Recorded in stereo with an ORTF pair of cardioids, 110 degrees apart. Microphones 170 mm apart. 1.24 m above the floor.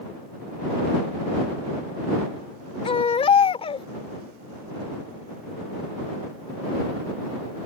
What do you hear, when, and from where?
2.9 s a baby crying: 35° left